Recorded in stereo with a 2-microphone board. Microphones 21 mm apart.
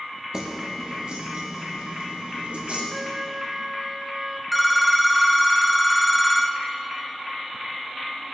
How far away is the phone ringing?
About 0.7 m.